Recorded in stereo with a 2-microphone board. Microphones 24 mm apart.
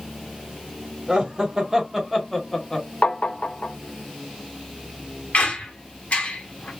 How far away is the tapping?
About 0.5 m.